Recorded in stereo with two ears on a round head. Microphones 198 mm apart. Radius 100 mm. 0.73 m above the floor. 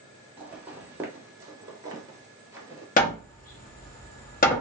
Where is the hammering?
40° left (ahead or behind), 0.9 m.